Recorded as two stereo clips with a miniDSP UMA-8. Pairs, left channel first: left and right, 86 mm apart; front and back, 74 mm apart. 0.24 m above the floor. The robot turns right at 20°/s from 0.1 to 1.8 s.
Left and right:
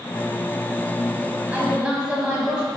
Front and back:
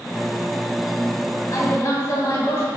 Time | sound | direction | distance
1.5 | a woman speaking | 20° right | 1.9 m